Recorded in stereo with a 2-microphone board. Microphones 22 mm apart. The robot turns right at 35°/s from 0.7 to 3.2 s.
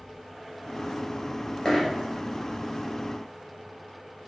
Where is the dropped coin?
30° left (ahead or behind), 1.9 m; by 1.9 s 40° left (ahead or behind), 1.9 m.